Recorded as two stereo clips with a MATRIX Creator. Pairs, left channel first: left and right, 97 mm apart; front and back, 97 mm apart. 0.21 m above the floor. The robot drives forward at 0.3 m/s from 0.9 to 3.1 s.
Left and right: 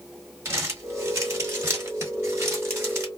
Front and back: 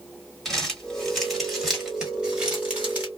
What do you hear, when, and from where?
0.5 s crumpling: 85° right, 1.7 m; by 3.1 s 125° right, 1.7 m